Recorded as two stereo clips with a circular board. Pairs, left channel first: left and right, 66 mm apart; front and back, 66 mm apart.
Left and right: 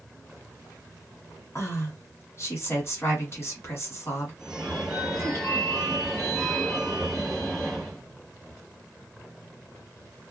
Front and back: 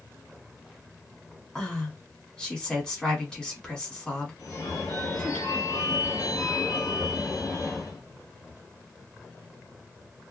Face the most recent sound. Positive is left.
turn(degrees=0)